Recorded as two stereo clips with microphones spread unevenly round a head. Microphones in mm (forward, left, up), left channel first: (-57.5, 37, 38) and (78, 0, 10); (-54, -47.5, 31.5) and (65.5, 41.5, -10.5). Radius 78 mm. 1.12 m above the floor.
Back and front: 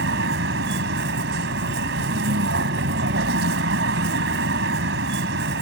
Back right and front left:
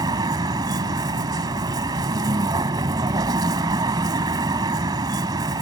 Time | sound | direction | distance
0.0 | a vehicle | 35° right | ?